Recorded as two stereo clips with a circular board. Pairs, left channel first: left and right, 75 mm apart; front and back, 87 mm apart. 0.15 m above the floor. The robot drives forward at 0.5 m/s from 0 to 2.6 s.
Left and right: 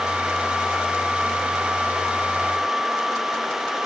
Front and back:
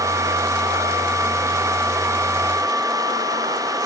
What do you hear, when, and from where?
Only background noise.